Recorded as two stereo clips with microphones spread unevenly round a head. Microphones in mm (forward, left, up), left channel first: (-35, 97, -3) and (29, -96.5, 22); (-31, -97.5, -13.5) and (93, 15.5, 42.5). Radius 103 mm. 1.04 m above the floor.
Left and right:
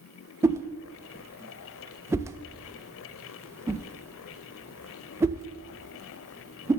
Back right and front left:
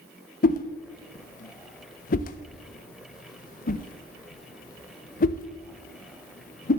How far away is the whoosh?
About 0.5 m.